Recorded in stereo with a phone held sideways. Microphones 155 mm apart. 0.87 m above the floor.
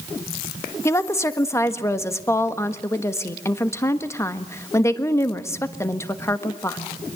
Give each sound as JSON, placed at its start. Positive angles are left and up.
{"t": 0.8, "sound": "a woman speaking", "side_deg": 15, "distance_m": 1.4}